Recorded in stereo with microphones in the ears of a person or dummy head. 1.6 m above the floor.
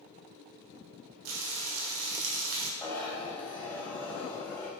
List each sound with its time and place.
1.2 s frying: 60° right (ahead or behind), 1.0 m
2.8 s a zipper: 5° left (ahead or behind), 1.0 m